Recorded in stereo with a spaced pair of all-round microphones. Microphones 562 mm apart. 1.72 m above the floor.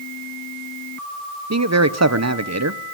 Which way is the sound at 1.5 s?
30° right (ahead or behind).